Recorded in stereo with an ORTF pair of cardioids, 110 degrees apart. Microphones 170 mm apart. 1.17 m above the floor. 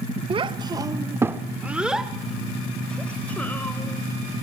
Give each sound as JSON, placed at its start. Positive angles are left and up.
{"t": 0.3, "sound": "a child speaking", "azimuth_deg": -35, "distance_m": 1.4}